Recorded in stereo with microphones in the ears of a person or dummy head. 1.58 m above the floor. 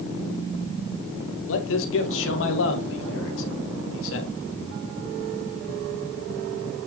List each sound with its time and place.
1.5 s a man speaking: 75° left (ahead or behind), 2 m